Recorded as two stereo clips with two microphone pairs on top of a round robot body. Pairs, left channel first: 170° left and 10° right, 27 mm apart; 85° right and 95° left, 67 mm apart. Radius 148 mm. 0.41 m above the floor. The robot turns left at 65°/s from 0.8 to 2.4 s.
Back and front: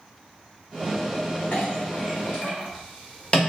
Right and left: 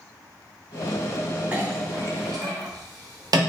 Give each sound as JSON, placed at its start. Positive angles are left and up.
{"t": 1.5, "sound": "a clink", "azimuth_deg": 165, "distance_m": 1.1}